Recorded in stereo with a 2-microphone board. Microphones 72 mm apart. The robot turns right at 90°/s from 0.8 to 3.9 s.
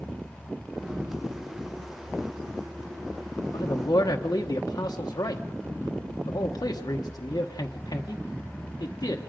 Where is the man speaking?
85° left, 1.0 m; by 9.2 s 65° left (ahead or behind), 1.0 m.